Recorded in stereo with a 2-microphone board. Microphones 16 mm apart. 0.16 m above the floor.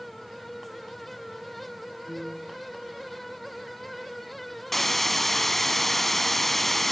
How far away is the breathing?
No breathing in this recording.